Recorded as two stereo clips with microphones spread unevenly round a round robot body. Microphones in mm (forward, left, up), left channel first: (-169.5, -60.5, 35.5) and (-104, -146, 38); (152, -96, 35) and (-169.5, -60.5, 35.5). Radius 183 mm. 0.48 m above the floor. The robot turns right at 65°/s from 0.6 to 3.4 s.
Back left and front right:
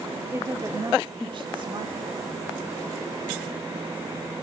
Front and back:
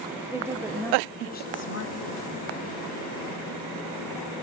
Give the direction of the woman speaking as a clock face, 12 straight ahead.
4 o'clock.